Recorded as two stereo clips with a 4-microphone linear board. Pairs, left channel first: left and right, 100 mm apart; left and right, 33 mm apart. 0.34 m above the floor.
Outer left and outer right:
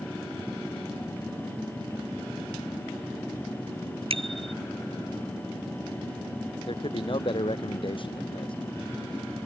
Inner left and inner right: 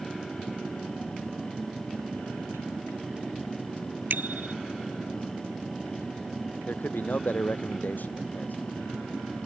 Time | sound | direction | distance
4.1 | a bicycle bell | 70° right (ahead or behind) | ?
6.7 | a man speaking | 60° left (ahead or behind) | ?